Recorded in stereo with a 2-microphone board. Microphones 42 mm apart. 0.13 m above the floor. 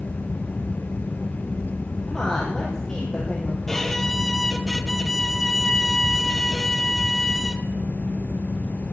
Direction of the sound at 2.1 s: 10° left (ahead or behind).